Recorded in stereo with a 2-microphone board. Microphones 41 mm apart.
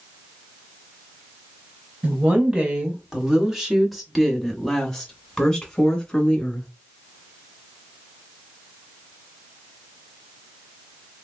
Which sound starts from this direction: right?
A woman speaking, at 2.0 s.